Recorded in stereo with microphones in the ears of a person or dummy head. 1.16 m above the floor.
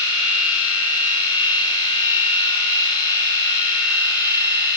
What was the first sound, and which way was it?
A machine running, 25° left (ahead or behind).